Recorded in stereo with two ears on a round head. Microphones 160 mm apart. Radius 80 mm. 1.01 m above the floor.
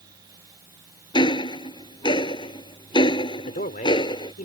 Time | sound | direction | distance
1.1 | ticking | 25° left (ahead or behind) | ?
3.4 | a man speaking | 45° left (ahead or behind) | ?